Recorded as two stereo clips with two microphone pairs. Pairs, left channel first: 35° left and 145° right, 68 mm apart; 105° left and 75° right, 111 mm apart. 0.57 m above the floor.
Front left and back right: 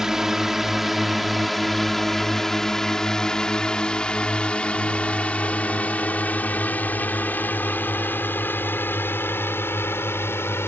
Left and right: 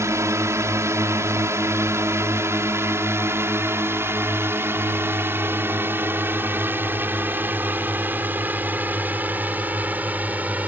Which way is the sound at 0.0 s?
65° right.